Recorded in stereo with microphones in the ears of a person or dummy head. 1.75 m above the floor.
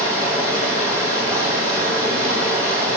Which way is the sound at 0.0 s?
10° left (ahead or behind).